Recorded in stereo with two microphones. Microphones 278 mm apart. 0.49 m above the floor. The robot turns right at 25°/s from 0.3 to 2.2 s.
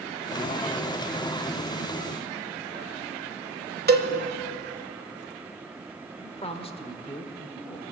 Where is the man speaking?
20° left (ahead or behind), 1.1 m.